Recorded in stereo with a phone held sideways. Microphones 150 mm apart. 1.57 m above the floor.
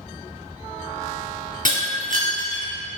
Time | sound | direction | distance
1.6 | breaking glass | 60° right (ahead or behind) | 2.5 m